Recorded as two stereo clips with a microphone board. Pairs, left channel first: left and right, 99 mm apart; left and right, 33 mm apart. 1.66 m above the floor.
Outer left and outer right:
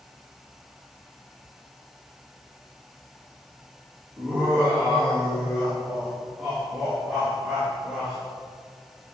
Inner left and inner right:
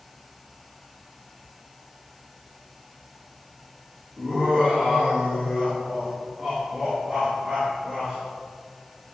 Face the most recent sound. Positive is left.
turn(degrees=-10)  # may be behind; listen again after turning